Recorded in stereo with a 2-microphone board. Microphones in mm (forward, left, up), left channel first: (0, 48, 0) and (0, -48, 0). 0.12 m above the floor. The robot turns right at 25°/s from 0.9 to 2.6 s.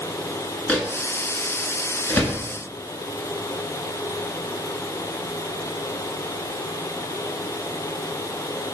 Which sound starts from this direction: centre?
A microwave, at 0.7 s.